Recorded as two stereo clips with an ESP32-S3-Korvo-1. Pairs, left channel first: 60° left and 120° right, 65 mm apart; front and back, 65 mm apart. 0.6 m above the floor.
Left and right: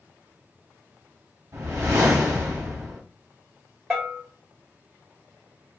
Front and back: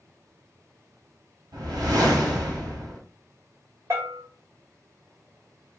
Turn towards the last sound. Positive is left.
turn(degrees=150)